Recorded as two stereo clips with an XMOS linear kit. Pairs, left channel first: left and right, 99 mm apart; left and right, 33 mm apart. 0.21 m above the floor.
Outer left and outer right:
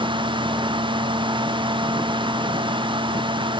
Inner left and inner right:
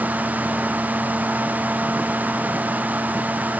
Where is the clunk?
No clunk in this recording.